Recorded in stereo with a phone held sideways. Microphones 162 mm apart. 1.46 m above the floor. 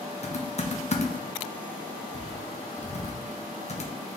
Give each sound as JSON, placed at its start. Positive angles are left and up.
{"t": 0.2, "sound": "typing on a keyboard", "side_deg": 45, "distance_m": 0.7}